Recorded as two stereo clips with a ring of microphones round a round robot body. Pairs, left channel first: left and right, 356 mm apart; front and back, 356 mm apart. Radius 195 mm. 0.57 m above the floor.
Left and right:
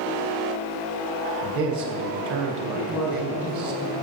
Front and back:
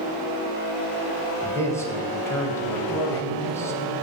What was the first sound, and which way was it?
A man speaking, 80° right.